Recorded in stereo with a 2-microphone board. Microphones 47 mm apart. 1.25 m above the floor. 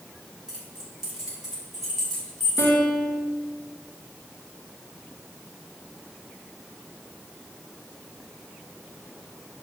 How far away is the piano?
About 1.3 m.